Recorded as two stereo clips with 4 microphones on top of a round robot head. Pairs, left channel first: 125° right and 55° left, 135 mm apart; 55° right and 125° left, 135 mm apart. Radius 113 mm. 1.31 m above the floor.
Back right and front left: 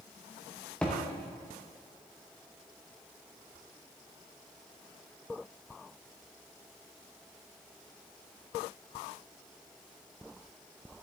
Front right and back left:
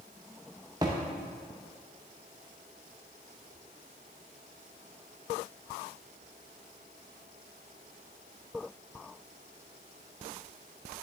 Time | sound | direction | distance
0.8 | a thud | 160° left | 0.5 m